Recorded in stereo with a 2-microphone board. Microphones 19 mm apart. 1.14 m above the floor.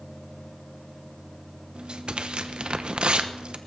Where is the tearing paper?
60° right (ahead or behind), 0.8 m.